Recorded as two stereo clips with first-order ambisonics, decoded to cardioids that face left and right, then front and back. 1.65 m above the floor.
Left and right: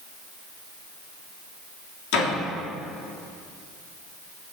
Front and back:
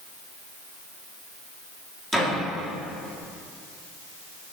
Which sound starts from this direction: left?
A door slam, at 2.1 s.